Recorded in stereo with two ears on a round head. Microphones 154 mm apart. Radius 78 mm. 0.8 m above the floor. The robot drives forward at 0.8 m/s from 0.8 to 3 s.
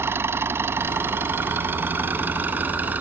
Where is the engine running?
15° right (ahead or behind); by 3.0 s 10° right (ahead or behind).